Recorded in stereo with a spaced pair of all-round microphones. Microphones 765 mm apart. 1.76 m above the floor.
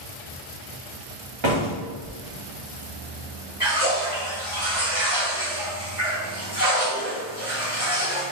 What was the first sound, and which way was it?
A door slam, 35° right (ahead or behind).